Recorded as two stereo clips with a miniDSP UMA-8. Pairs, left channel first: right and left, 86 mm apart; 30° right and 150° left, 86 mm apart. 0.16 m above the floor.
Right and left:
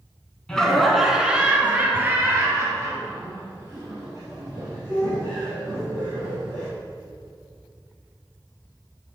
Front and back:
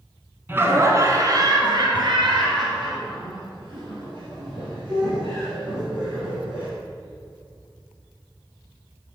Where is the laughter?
165° right, 1.4 m; by 6.7 s 130° left, 5.5 m.